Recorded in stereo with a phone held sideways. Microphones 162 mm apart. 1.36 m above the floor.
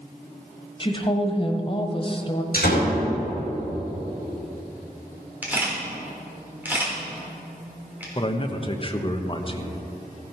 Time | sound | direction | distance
0.8 | a woman speaking | 35° left (ahead or behind) | 1.2 m
2.5 | a door slam | 70° left (ahead or behind) | 4 m
5.4 | a camera shutter | 10° right (ahead or behind) | 3.5 m
8.2 | a man speaking | 35° left (ahead or behind) | 0.9 m